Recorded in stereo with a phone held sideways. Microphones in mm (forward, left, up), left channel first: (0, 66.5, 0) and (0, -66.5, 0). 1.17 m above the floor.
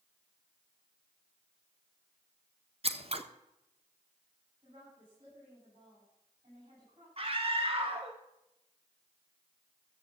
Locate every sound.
2.8 s scissors: 50° right (ahead or behind), 1.0 m
4.6 s a woman speaking: 40° right (ahead or behind), 9.5 m
7.2 s a scream: 45° right (ahead or behind), 1.0 m